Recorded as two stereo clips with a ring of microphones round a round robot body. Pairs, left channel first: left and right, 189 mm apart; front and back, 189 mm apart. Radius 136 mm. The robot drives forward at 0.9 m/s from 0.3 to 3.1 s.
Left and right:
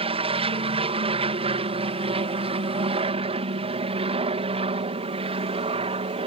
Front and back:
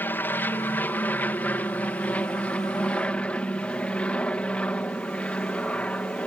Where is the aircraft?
70° right; by 6.3 s 80° right.